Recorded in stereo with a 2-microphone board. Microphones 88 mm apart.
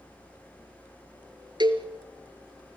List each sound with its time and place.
1.6 s a cowbell: 60° right (ahead or behind), 1.8 m